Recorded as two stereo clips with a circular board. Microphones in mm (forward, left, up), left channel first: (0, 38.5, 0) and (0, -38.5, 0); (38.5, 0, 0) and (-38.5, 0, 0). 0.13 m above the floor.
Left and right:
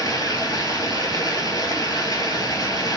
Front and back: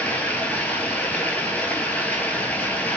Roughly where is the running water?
Left.